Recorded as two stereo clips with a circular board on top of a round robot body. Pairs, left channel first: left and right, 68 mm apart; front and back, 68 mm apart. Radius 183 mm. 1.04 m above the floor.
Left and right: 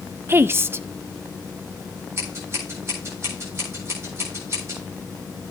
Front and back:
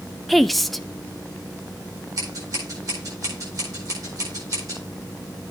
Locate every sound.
0.3 s a woman speaking: 85° right, 0.7 m
2.2 s scissors: 140° right, 8.5 m